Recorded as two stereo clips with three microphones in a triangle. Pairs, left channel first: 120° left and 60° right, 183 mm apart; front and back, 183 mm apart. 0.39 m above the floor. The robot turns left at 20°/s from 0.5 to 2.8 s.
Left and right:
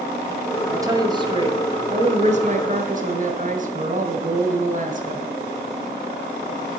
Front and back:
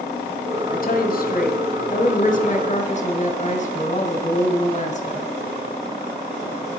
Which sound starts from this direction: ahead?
A woman speaking, at 0.7 s.